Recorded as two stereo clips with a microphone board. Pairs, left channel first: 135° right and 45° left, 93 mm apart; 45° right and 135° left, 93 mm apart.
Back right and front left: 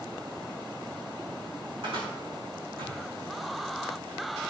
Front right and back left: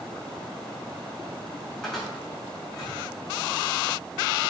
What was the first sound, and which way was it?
A cupboard door, 40° left.